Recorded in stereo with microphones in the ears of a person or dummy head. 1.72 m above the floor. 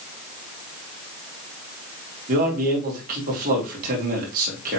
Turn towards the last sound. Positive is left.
turn(degrees=-50)  # may be behind; listen again after turning